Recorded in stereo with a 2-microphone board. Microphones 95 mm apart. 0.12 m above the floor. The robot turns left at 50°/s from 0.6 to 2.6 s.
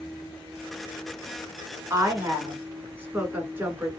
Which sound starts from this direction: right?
A woman speaking, at 1.9 s.